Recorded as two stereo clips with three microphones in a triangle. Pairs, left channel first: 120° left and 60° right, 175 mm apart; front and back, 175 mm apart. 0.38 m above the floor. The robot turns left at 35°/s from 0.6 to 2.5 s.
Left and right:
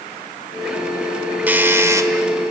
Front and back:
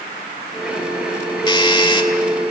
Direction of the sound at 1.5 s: 10° left.